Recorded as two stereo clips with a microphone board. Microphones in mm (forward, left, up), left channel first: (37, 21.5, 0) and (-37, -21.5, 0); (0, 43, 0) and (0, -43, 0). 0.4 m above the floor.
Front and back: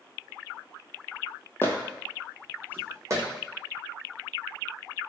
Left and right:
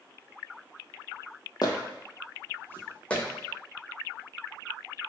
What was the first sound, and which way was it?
Footsteps, 85° left.